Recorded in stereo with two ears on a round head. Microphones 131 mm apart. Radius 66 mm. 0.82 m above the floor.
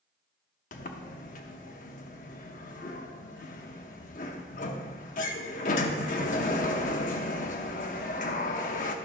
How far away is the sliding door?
About 0.7 m.